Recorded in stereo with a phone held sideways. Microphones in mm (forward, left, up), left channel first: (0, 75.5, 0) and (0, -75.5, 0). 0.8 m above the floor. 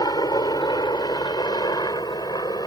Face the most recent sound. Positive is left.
turn(degrees=25)  # may be behind; listen again after turning